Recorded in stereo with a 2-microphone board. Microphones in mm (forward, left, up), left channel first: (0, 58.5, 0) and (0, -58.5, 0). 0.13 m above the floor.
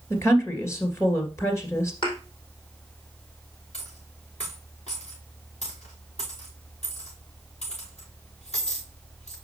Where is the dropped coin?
70° left (ahead or behind), 5 m.